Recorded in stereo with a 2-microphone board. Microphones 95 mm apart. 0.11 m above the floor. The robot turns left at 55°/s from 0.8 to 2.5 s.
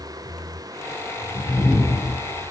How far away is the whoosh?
About 3 m.